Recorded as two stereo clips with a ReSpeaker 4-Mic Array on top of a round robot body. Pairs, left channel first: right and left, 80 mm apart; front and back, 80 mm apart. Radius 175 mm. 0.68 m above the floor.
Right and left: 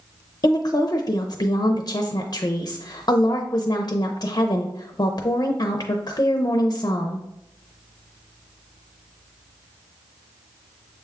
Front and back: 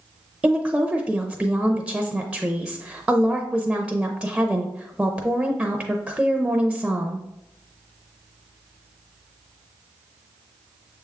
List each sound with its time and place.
0.4 s a woman speaking: 105° right, 0.7 m